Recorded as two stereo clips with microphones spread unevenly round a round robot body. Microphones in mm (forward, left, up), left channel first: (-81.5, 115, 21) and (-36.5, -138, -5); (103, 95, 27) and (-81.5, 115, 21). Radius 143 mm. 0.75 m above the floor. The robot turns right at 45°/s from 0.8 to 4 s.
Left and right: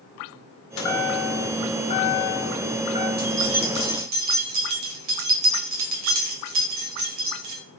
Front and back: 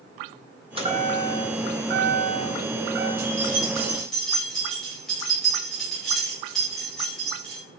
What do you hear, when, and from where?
0.8 s a chime: 115° left, 2.0 m; by 3.1 s 145° right, 2.0 m
3.2 s keys jangling: 130° right, 2.5 m; by 7.6 s 95° right, 2.5 m